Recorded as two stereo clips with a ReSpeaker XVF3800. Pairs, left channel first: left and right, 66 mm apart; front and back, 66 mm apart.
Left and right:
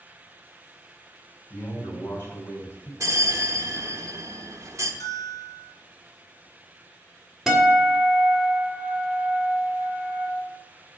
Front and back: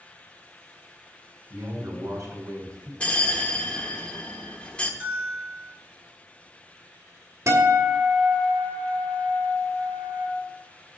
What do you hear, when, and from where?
1.5 s a man speaking: 140° left, 3.5 m
3.0 s a bell: 70° right, 0.9 m
5.0 s a bell: 110° left, 2.5 m
7.5 s a guitar: 170° right, 1.9 m